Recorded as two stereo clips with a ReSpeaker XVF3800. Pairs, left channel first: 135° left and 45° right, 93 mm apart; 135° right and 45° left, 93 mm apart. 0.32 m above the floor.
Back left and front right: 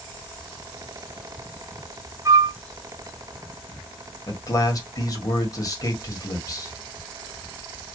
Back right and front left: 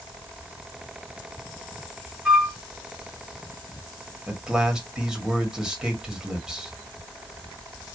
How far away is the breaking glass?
I don't hear breaking glass.